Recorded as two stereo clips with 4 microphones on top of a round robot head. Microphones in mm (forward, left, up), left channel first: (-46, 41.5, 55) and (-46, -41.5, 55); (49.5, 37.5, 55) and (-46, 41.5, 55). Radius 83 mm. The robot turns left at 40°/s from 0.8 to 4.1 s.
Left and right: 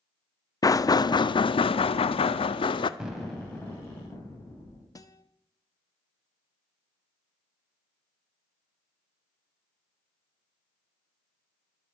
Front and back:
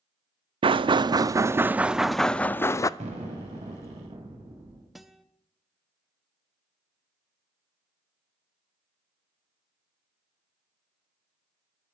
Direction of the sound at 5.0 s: 90° left.